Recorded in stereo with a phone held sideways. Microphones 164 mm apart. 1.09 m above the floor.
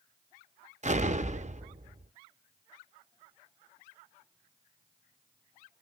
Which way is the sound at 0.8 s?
45° right (ahead or behind).